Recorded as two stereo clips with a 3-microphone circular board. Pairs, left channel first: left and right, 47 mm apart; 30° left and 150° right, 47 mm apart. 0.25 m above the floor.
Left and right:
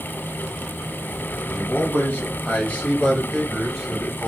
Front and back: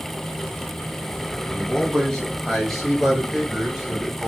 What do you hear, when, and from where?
1.5 s a man speaking: 95° left, 1.9 m; by 4.3 s 135° right, 1.4 m